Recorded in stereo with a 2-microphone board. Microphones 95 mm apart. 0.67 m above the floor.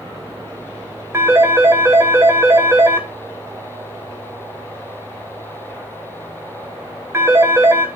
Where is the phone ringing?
25° right (ahead or behind), 2 m.